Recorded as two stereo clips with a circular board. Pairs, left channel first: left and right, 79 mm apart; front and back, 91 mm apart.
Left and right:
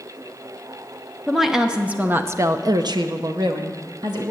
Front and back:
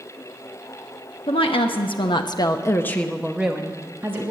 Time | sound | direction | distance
1.3 | a woman speaking | straight ahead | 1.3 m